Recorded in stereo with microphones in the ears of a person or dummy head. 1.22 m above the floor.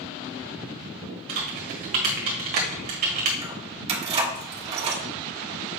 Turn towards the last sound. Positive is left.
turn(degrees=-30)  # may be behind; listen again after turning